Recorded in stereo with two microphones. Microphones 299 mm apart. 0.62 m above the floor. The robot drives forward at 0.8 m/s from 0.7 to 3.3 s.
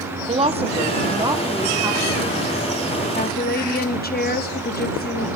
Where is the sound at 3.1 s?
30° left (ahead or behind), 0.7 m.